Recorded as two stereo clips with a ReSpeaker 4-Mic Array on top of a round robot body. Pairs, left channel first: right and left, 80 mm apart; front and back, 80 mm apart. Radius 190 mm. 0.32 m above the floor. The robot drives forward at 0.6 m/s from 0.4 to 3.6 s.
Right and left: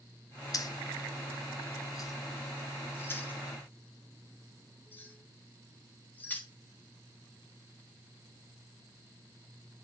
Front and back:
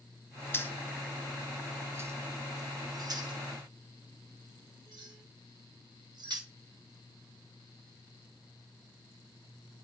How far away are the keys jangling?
About 0.9 m.